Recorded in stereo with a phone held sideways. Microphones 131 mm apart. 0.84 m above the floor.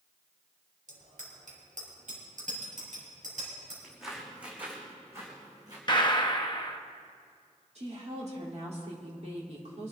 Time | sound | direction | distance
0.9 | a bicycle bell | 75° right (ahead or behind) | 2.5 m
3.8 | footsteps | centre (ahead or behind) | 3.5 m
5.9 | a gunshot | 35° left (ahead or behind) | 0.8 m
7.8 | a woman speaking | 55° right (ahead or behind) | 3 m